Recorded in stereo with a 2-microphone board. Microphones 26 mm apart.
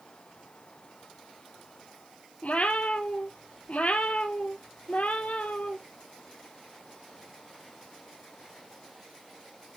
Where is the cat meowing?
70° left (ahead or behind), 0.8 m.